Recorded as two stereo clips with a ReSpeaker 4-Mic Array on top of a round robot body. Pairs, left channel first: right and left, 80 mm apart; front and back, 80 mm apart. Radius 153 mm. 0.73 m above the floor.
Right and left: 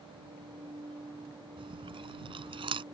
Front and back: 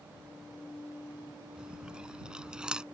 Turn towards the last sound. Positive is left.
turn(degrees=100)